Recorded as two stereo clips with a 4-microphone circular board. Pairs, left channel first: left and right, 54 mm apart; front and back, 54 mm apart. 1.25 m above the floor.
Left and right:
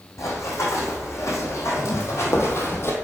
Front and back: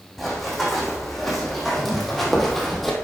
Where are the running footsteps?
90° left, 3 m; by 3.0 s 85° left, 1.8 m.